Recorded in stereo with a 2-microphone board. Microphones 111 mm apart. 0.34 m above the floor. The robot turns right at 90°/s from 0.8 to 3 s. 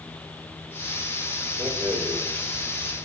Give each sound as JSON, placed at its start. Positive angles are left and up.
{"t": 1.6, "sound": "a rattle", "side_deg": -45, "distance_m": 2.5}